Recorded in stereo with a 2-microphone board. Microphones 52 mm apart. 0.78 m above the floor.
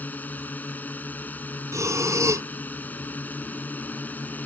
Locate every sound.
0.0 s a drone: 35° left (ahead or behind)
1.7 s breathing: 75° right (ahead or behind)